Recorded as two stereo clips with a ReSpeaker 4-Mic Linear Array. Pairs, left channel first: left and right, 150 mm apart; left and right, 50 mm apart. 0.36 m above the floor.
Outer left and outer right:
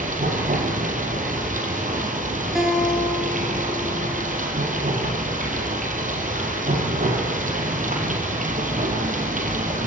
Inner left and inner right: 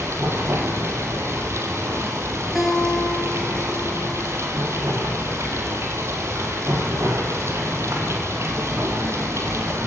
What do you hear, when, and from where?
0.0 s running water: 60° right (ahead or behind), 3.5 m
2.5 s a guitar: 5° right (ahead or behind), 4 m